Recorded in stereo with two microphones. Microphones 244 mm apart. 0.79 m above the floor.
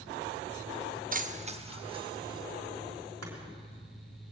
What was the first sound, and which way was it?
Keys jangling, 35° right (ahead or behind).